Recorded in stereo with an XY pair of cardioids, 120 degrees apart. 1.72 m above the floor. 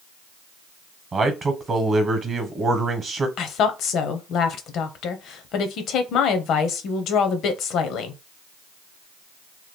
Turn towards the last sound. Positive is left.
turn(degrees=70)